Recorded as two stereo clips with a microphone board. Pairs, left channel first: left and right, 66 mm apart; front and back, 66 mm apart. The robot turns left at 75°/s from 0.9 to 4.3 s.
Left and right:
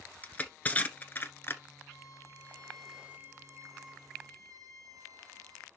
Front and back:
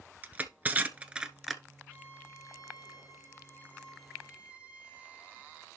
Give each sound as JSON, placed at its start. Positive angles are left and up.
{"t": 0.2, "sound": "crushing", "azimuth_deg": 135, "distance_m": 1.0}
{"t": 1.9, "sound": "a violin", "azimuth_deg": 70, "distance_m": 1.9}